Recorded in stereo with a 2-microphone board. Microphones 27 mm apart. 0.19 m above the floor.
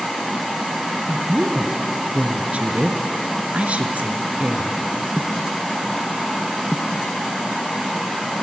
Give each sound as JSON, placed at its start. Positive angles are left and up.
{"t": 1.1, "sound": "a woman speaking", "side_deg": -50, "distance_m": 2.5}